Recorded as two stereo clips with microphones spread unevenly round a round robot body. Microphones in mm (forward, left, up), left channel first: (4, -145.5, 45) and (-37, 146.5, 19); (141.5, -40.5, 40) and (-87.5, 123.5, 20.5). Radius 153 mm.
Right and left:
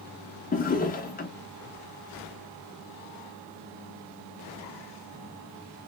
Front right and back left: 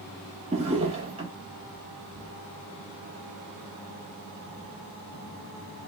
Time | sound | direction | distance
0.5 | a drawer | 145° right | 0.5 m